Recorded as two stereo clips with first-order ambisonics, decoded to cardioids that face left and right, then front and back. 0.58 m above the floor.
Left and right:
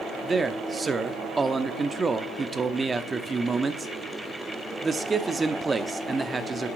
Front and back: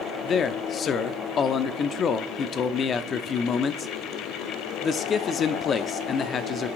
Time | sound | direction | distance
0.2 | a man speaking | 30° right | 0.7 m